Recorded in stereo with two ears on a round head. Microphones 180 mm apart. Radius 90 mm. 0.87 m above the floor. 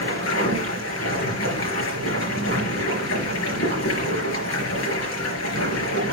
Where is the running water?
75° left (ahead or behind), 4.5 m.